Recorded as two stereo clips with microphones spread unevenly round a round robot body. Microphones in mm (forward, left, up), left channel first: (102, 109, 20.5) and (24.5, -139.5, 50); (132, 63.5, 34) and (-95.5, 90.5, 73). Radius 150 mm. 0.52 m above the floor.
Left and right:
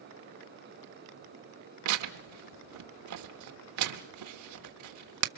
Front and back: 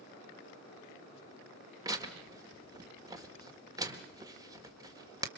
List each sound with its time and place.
1.9 s tearing paper: 105° right, 1.4 m